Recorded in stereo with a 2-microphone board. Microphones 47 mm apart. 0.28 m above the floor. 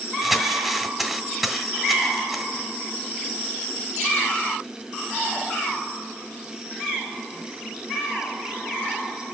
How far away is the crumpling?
About 1.3 m.